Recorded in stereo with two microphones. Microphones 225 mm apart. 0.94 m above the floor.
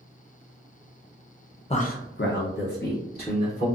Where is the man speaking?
30° left (ahead or behind), 0.5 m; by 3.7 s 40° left (ahead or behind), 1.7 m.